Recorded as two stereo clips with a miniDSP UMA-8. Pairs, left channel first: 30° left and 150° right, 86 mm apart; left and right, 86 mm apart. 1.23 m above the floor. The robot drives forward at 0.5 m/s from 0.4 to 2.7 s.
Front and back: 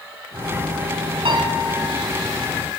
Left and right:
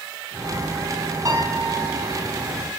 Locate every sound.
1.2 s a piano: 140° right, 4.5 m; by 2.1 s 145° right, 5 m